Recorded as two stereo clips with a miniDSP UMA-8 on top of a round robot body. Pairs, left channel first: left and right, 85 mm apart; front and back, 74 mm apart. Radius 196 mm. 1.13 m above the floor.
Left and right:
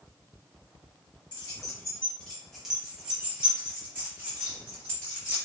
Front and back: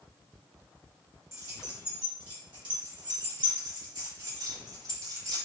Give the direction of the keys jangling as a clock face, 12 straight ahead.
8 o'clock.